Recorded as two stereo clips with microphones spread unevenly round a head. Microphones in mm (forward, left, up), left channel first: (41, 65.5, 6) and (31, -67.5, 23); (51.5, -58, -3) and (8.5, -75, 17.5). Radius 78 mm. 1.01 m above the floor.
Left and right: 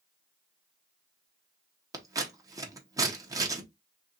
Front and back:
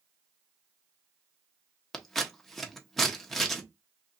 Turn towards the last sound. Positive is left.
turn(degrees=-35)